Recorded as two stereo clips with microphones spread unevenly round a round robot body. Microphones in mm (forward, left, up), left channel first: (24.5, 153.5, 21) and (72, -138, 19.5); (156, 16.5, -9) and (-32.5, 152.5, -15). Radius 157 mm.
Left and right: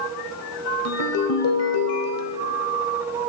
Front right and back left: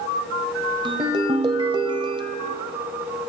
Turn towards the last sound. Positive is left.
turn(degrees=80)